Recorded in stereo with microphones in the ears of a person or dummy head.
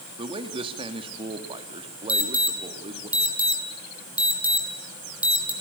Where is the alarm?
10° right (ahead or behind), 4.5 m.